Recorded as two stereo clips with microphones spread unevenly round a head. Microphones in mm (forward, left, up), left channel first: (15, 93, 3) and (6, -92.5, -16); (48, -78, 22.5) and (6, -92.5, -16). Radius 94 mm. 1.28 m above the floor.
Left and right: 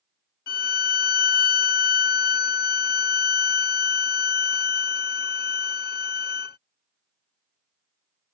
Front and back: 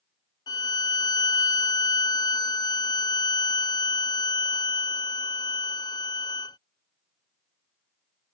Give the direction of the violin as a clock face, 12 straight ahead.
10 o'clock.